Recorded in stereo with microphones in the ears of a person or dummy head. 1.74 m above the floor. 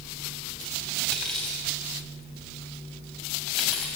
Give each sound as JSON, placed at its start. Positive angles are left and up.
{"t": 1.1, "sound": "cutlery clinking", "side_deg": 0, "distance_m": 6.0}